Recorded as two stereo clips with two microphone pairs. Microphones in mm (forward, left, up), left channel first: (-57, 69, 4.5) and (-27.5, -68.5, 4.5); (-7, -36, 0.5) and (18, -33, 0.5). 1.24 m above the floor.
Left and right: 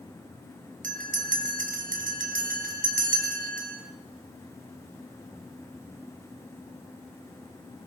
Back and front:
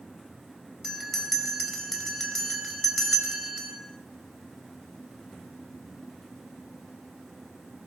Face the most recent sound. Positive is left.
turn(degrees=-95)